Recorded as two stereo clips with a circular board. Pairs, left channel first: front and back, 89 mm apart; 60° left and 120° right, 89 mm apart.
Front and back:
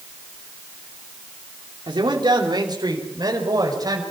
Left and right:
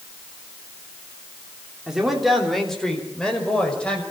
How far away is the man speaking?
About 3.5 m.